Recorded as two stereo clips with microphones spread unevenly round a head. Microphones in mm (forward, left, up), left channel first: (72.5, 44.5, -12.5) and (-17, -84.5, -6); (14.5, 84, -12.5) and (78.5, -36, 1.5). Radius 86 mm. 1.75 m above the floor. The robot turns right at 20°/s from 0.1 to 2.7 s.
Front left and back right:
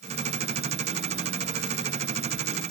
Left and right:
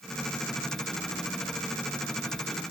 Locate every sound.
Only background noise.